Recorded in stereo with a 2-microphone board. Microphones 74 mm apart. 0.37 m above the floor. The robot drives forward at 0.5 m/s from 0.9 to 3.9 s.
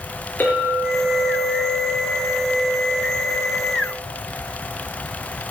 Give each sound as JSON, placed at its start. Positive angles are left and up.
{"t": 0.4, "sound": "a clink", "side_deg": 25, "distance_m": 4.0}